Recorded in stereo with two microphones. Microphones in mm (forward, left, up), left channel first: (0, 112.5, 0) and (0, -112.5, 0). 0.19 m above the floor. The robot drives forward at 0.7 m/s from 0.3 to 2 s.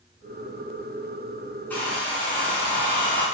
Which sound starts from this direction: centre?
A hair dryer, at 1.7 s.